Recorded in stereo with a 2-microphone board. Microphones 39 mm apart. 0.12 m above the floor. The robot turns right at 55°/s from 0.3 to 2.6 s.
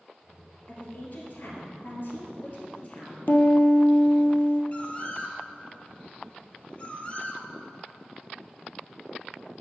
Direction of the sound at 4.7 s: 35° left (ahead or behind).